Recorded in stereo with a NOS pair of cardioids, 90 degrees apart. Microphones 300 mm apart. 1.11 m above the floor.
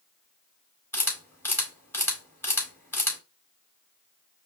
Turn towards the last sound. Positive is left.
turn(degrees=10)